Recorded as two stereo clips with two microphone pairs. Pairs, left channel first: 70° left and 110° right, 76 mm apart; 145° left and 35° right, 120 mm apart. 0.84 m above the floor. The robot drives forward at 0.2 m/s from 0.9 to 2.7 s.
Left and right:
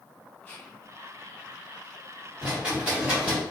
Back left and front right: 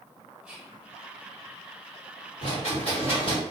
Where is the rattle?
175° left, 1.6 m.